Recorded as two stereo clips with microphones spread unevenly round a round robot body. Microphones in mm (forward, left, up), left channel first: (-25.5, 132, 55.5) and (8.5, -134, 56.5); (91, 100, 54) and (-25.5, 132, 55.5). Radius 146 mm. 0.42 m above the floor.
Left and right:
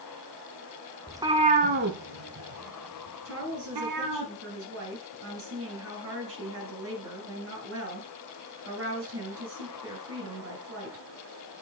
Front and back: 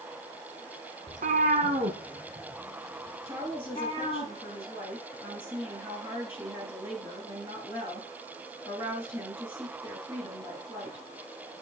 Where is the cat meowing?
165° right, 0.9 m; by 4.2 s 85° right, 1.9 m.